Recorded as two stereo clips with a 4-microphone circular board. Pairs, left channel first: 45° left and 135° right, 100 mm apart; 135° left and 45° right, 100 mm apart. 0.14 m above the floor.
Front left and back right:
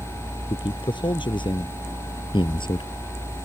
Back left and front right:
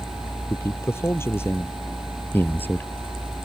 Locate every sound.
0.5 s a man speaking: 75° left; by 2.9 s 65° left